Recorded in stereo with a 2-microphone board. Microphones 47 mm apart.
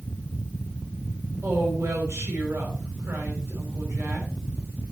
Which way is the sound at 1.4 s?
75° right (ahead or behind).